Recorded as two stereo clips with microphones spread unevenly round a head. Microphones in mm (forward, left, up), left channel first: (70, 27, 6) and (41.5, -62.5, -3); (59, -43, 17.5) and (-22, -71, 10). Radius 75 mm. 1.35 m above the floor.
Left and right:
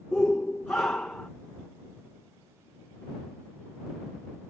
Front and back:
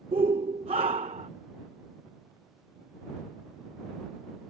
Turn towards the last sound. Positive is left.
turn(degrees=150)